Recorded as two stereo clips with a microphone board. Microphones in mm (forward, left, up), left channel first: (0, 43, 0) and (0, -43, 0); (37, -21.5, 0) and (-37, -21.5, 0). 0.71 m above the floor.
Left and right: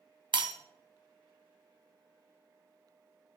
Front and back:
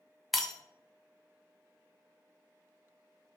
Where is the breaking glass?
90° right, 0.5 m.